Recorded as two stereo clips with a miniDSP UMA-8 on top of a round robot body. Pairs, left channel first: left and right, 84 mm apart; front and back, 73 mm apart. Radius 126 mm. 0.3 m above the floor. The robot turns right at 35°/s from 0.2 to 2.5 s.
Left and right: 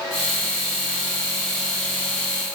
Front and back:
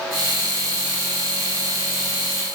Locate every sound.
Only background noise.